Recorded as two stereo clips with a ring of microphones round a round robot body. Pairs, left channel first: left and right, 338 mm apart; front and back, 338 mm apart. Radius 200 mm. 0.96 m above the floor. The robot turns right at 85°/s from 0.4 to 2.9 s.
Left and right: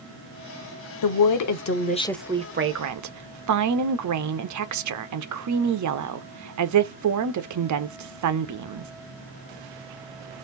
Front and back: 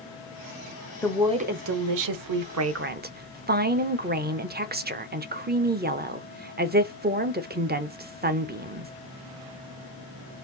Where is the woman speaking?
80° left, 1.0 m; by 8.9 s 120° right, 1.0 m.